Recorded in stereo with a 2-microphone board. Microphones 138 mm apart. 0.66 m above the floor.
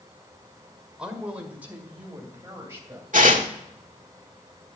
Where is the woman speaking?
5° right (ahead or behind), 1.8 m; by 3.0 s 20° right (ahead or behind), 3 m.